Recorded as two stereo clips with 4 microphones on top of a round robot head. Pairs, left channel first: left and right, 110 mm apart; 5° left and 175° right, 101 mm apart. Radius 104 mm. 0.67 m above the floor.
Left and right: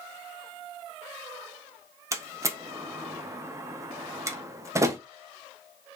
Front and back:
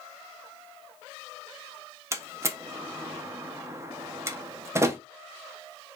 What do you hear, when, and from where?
2.1 s a door slam: 135° right, 0.5 m